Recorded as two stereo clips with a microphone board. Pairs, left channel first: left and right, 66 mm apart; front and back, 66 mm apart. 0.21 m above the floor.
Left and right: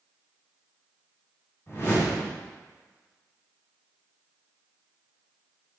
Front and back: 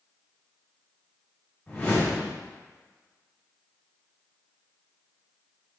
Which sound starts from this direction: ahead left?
A whoosh, at 1.7 s.